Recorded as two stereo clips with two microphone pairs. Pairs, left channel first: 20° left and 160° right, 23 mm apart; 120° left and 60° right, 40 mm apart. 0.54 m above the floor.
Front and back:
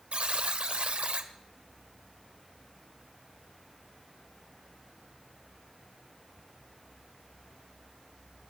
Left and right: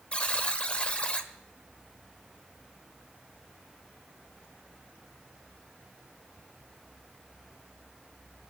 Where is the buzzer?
Straight behind, 1.5 m.